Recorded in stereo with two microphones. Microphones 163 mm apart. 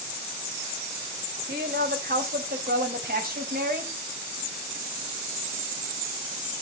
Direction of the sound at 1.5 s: 80° right.